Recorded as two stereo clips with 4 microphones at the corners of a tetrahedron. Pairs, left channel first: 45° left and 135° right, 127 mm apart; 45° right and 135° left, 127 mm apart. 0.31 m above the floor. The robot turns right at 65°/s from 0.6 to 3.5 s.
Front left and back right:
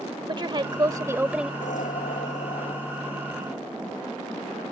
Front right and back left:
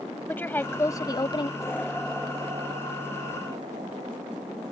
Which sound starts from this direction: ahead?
An explosion, at 1.6 s.